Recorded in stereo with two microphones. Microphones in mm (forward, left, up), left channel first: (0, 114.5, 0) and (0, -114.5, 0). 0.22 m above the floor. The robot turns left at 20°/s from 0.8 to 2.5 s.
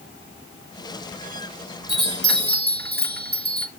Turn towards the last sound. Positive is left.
turn(degrees=-45)  # may be behind; listen again after turning